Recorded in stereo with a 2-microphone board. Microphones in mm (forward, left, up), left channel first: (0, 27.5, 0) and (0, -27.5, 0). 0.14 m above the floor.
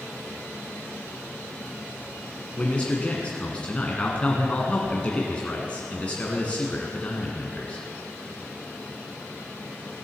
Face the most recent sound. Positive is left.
turn(degrees=25)  # may be behind; listen again after turning